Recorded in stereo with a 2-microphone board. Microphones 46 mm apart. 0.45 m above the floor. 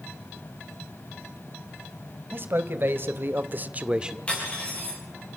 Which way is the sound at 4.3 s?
25° left (ahead or behind).